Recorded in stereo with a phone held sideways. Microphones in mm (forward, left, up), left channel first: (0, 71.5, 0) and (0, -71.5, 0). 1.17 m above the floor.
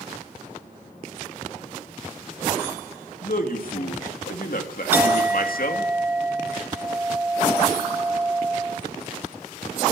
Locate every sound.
3.2 s a man speaking: 70° left (ahead or behind), 2.5 m
4.9 s a clink: 10° right (ahead or behind), 1.0 m